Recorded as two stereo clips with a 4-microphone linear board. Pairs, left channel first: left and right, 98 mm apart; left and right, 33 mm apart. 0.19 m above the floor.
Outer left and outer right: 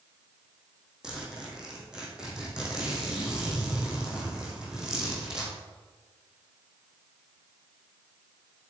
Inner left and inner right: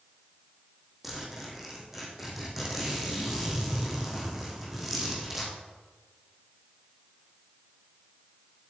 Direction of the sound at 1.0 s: 10° right (ahead or behind).